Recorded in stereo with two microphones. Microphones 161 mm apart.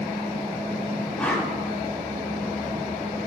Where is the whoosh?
10° left (ahead or behind), 1.1 m.